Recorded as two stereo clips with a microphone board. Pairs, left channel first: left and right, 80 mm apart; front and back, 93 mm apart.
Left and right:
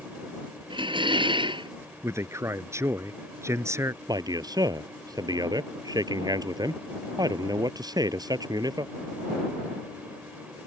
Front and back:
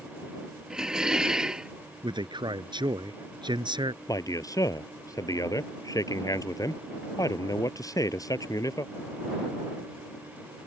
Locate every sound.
0.7 s dishes clattering: 95° right
2.0 s a man speaking: 145° right
4.1 s a man speaking: 50° right